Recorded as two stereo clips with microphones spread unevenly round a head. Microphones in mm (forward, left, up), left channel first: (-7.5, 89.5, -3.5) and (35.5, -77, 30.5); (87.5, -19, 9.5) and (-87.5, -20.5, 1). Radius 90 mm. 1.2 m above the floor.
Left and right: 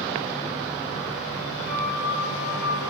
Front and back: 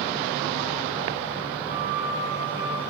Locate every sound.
1.7 s a flute: 110° left, 1.5 m